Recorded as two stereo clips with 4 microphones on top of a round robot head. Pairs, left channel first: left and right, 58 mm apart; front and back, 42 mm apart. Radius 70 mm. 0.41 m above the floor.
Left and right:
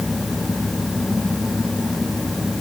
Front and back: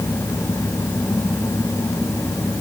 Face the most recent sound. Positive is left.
No sound to turn to.